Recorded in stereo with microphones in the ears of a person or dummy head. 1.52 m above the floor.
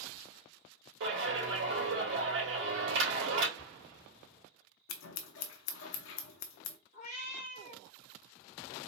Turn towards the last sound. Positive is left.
turn(degrees=40)  # may be behind; listen again after turning